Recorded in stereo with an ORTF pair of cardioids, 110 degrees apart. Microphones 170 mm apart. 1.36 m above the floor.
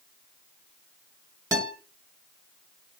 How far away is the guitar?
About 1.2 m.